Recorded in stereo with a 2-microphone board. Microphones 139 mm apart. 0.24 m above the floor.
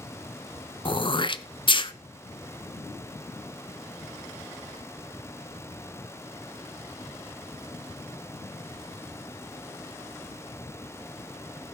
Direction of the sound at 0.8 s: 35° left (ahead or behind).